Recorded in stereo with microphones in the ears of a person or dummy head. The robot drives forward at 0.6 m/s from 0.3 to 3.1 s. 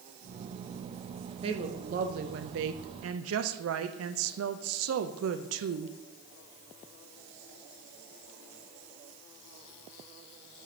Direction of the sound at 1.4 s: 30° right (ahead or behind).